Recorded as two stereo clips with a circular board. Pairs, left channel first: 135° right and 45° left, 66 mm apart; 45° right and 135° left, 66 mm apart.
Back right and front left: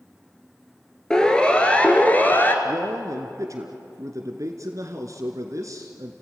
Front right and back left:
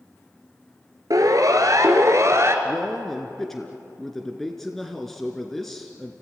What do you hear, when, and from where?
1.1 s a siren: 150° left, 2.5 m; by 2.5 s 170° left, 2 m
2.6 s a man speaking: 40° left, 1.8 m